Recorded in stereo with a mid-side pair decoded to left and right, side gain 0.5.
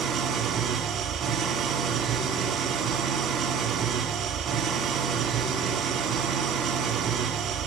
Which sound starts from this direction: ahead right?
An engine running, at 0.0 s.